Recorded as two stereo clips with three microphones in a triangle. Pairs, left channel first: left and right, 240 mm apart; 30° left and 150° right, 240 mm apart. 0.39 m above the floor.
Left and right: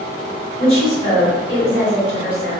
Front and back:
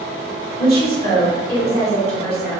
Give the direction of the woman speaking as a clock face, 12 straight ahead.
1 o'clock.